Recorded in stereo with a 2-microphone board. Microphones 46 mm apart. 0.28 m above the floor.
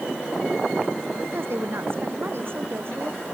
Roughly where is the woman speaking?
Right.